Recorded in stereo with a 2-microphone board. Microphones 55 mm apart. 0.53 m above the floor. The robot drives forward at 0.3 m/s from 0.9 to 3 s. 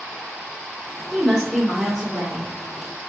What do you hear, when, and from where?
1.1 s a woman speaking: centre (ahead or behind), 1.6 m